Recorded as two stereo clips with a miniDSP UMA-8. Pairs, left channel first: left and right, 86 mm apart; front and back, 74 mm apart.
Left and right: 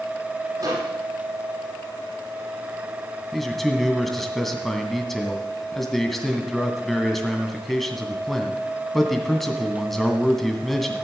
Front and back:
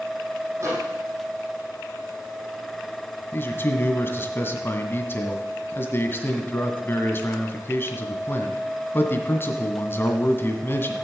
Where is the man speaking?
5° left, 1.8 m.